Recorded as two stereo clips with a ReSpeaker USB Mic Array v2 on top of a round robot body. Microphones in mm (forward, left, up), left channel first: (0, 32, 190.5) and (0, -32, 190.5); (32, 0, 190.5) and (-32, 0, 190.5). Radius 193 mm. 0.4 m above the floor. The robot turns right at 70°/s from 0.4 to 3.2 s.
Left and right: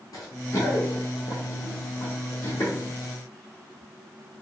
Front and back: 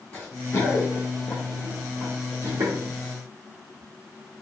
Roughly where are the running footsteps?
Left.